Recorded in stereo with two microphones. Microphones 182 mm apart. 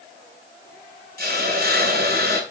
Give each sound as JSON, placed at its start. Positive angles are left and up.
{"t": 1.2, "sound": "a hiss", "side_deg": -60, "distance_m": 1.9}